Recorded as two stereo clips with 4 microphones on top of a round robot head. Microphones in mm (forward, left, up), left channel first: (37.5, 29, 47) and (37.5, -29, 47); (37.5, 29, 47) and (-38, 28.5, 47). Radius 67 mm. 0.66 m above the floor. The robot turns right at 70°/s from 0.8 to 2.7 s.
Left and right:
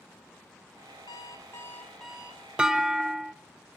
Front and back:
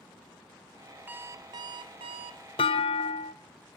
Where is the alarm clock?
110° left, 0.7 m; by 2.5 s 150° right, 0.7 m.